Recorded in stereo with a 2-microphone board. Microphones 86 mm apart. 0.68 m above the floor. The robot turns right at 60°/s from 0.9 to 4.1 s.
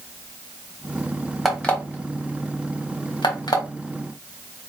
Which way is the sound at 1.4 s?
Centre (ahead or behind).